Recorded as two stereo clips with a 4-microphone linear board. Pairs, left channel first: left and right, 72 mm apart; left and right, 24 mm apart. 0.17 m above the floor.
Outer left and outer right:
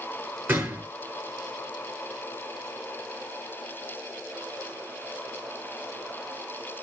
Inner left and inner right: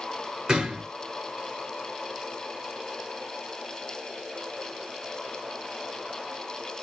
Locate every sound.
0.5 s a gunshot: 25° right (ahead or behind), 3 m